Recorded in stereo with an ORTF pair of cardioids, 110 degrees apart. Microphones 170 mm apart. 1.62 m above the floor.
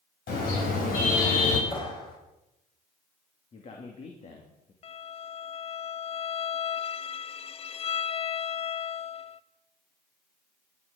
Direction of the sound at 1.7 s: 30° left.